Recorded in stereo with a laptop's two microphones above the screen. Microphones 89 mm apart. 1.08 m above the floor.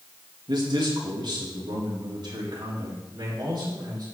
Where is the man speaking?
60° right (ahead or behind), 1.7 m; by 4.1 s 55° right (ahead or behind), 4 m.